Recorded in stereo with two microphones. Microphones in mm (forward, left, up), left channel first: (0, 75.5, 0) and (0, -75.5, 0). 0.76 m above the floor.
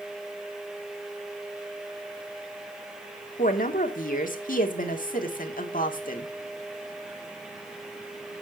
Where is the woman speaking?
65° left (ahead or behind), 1.8 m.